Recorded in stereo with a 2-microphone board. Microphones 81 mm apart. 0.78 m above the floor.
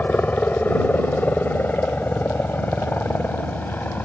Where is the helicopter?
20° left (ahead or behind); by 4.1 s 25° left (ahead or behind).